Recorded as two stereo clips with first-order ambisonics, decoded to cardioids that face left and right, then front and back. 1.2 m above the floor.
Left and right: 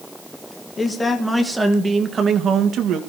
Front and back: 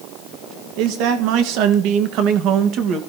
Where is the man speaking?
165° left, 1.6 m; by 3.0 s 135° right, 1.7 m.